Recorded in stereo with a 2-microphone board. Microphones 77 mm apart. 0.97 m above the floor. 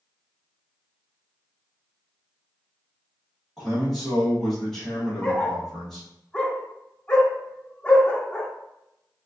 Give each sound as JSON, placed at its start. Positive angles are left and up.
{"t": 3.6, "sound": "a man speaking", "side_deg": 5, "distance_m": 1.7}
{"t": 5.2, "sound": "a dog barking", "side_deg": 15, "distance_m": 0.8}